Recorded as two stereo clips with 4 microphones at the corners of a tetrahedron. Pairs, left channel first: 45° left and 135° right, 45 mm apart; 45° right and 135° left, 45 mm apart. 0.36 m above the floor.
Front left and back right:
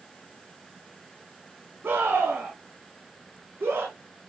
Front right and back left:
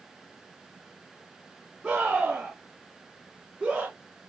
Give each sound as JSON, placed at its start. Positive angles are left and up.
{"t": 1.8, "sound": "a scream", "azimuth_deg": -170, "distance_m": 4.0}